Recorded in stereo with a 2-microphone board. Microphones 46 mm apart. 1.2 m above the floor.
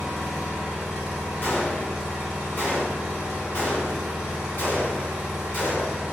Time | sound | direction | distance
0.0 | an engine running | 10° right (ahead or behind) | 1.0 m
1.4 | a gunshot | 45° left (ahead or behind) | 1.4 m